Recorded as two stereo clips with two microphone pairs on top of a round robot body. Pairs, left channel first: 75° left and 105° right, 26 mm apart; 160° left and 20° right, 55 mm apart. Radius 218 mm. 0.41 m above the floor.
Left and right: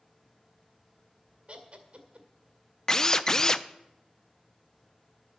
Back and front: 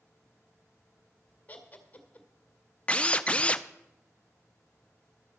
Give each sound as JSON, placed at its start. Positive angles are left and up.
{"t": 1.5, "sound": "laughter", "azimuth_deg": -145, "distance_m": 2.0}
{"t": 2.9, "sound": "a drill", "azimuth_deg": 115, "distance_m": 0.8}